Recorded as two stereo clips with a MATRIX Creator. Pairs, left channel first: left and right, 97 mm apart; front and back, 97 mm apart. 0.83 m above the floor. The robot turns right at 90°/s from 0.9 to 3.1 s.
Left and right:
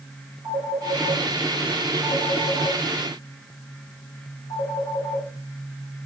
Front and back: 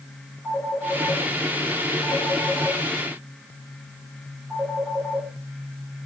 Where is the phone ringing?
65° right, 9.5 m; by 5.3 s 135° left, 9.5 m.